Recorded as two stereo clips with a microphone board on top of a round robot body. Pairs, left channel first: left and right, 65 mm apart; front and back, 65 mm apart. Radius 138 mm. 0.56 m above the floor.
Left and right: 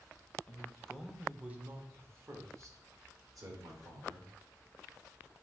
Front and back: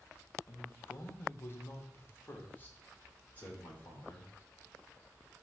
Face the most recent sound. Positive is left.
turn(degrees=-65)